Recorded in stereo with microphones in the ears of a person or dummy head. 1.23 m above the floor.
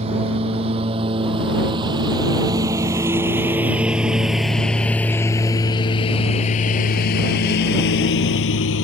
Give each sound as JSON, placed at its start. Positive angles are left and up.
{"t": 0.0, "sound": "a lawn mower", "side_deg": -35}